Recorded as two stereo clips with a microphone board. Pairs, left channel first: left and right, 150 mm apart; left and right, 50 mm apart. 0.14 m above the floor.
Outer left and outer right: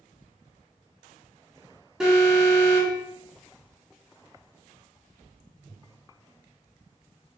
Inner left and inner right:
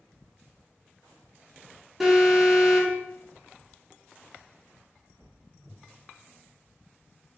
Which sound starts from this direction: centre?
An alarm, at 2.0 s.